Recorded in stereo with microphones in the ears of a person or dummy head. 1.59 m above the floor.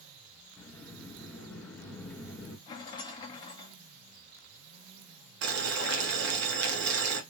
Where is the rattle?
20° left (ahead or behind), 1.1 m.